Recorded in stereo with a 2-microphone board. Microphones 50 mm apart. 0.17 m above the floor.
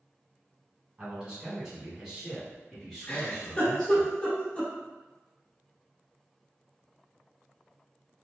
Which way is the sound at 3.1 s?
25° left (ahead or behind).